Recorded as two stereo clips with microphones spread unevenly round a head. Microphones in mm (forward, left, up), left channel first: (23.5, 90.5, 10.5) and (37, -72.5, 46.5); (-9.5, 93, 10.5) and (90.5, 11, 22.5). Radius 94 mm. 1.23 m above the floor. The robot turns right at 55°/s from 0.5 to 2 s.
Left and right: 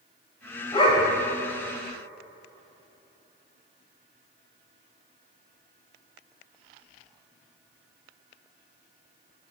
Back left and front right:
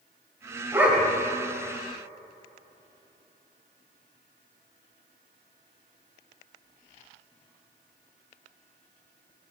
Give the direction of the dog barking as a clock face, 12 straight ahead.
11 o'clock.